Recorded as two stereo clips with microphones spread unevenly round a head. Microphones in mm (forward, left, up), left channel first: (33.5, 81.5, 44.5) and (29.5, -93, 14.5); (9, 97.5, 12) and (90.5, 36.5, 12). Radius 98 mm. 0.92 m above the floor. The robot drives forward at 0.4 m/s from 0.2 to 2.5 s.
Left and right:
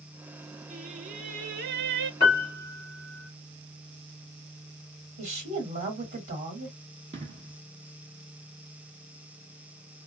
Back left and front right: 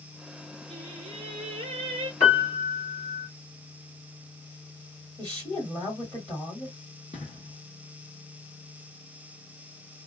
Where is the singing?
35° right, 0.9 m; by 2.1 s 75° right, 0.6 m.